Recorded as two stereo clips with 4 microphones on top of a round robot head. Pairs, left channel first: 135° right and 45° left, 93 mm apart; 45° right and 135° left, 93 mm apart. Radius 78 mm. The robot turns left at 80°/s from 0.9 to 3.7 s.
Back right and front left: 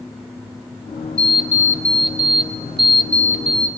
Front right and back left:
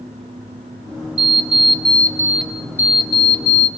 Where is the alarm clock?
150° left, 0.6 m; by 3.7 s 55° right, 0.6 m.